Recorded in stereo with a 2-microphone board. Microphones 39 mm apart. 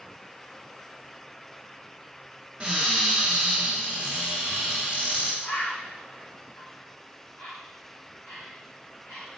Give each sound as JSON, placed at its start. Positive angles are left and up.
{"t": 2.6, "sound": "a cupboard door", "side_deg": -35, "distance_m": 1.5}
{"t": 5.4, "sound": "a bird", "side_deg": 55, "distance_m": 2.5}